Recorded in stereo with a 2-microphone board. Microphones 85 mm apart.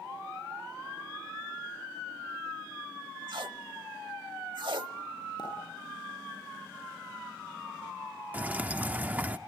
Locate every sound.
3.3 s tape being pulled: 65° right (ahead or behind), 0.8 m
5.4 s a pop: 55° left (ahead or behind), 10 m
8.3 s dripping: 20° right (ahead or behind), 0.7 m